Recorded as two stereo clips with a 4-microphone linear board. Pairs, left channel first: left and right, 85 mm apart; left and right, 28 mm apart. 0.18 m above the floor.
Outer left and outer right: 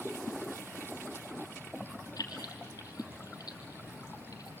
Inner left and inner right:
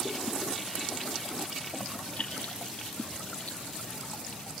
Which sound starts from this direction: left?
Keys jangling, at 2.2 s.